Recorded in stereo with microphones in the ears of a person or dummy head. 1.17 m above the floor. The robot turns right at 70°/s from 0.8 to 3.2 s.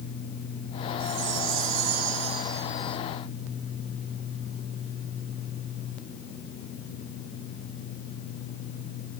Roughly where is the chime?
Behind right.